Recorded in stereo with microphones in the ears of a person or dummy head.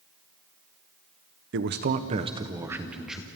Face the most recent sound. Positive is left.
turn(degrees=-5)  # may be behind; listen again after turning